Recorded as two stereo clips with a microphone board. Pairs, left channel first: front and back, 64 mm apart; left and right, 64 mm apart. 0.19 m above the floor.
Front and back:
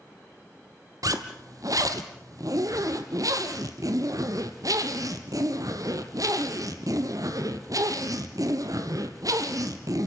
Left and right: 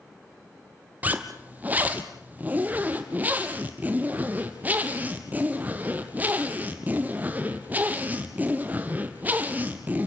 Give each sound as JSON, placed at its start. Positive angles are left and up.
{"t": 1.0, "sound": "a zipper", "azimuth_deg": -155, "distance_m": 2.0}